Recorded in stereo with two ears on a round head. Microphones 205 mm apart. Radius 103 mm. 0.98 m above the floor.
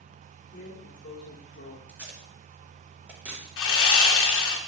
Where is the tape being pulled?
5° right (ahead or behind), 0.9 m.